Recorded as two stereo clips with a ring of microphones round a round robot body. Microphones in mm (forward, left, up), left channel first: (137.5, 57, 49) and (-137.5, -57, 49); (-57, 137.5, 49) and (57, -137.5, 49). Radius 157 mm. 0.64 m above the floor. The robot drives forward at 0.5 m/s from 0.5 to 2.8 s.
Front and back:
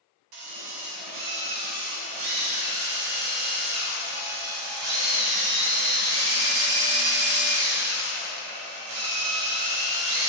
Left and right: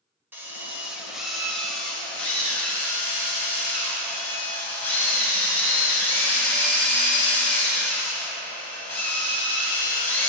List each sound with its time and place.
0.3 s a drill: 150° right, 1.7 m; by 10.3 s 165° right, 2.5 m